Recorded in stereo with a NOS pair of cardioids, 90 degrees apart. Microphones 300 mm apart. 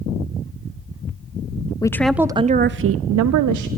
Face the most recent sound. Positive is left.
turn(degrees=-80)